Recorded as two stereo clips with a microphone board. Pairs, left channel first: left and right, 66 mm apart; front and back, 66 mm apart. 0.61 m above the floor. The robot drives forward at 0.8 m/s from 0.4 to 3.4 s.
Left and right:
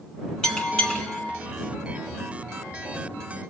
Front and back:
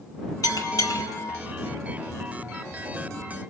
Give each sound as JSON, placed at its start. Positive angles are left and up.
{"t": 0.4, "sound": "a bell", "azimuth_deg": 10, "distance_m": 2.0}